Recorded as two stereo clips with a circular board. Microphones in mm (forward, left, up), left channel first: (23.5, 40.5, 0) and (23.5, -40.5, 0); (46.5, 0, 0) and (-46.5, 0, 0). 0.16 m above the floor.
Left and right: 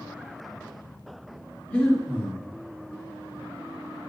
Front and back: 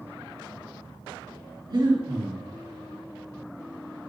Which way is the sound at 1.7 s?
160° left.